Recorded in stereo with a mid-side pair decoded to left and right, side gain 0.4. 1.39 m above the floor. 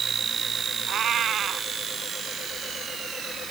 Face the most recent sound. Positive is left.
turn(degrees=-65)